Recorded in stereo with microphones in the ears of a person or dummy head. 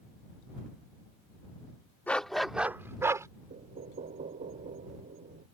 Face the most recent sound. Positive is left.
turn(degrees=-40)  # may be behind; listen again after turning